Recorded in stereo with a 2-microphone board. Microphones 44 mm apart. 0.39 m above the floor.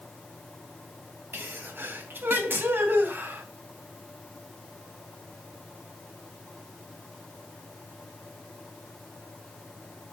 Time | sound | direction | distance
1.3 | a sneeze | 55° right (ahead or behind) | 3 m